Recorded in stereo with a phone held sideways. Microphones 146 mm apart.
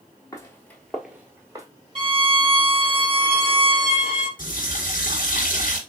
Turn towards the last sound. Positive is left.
turn(degrees=70)  # may be behind; listen again after turning